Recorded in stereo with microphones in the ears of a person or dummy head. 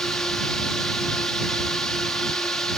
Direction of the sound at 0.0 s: 10° left (ahead or behind).